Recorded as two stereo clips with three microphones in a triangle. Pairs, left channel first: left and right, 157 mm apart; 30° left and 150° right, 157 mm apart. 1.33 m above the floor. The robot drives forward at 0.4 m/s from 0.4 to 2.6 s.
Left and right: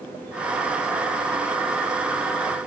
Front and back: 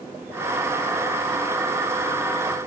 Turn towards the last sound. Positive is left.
No sound to turn to.